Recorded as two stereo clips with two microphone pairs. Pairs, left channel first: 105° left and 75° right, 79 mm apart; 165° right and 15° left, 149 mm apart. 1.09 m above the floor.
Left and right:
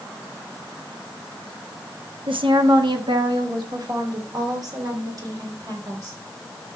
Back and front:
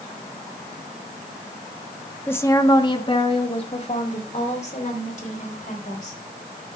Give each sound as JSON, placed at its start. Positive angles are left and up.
{"t": 2.3, "sound": "a woman speaking", "azimuth_deg": -85, "distance_m": 1.1}